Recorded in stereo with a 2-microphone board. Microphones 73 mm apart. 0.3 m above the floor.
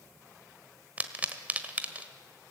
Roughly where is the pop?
Right.